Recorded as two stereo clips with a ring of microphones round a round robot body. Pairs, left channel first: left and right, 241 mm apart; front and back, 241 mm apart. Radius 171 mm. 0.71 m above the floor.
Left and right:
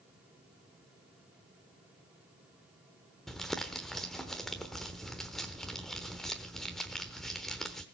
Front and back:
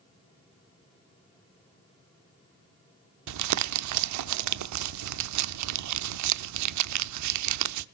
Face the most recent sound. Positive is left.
turn(degrees=180)